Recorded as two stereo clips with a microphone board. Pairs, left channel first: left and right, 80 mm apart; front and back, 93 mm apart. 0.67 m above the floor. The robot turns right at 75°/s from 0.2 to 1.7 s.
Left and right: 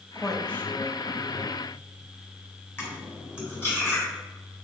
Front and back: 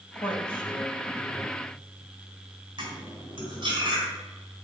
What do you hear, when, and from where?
0.1 s a woman speaking: 10° right, 2.5 m; by 1.6 s 95° left, 2.5 m
2.8 s cutlery clinking: 150° left, 3.5 m